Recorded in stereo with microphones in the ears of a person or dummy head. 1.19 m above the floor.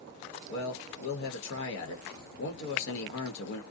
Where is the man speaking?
65° left (ahead or behind), 1.0 m.